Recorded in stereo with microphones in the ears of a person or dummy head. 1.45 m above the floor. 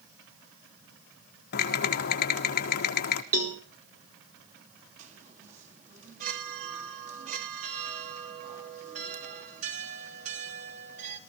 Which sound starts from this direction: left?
Typing on a keyboard, at 1.5 s.